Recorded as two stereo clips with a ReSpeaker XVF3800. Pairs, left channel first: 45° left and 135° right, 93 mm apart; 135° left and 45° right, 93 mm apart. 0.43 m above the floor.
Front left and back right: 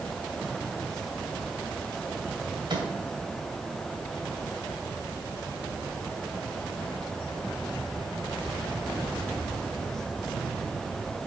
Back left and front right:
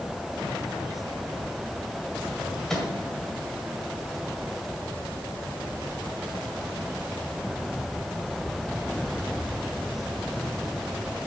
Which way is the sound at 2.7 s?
140° right.